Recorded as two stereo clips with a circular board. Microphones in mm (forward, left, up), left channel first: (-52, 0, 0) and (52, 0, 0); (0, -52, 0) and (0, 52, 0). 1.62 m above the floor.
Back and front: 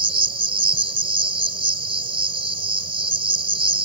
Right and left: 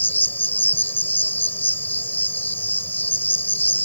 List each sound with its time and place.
0.0 s an insect: 20° right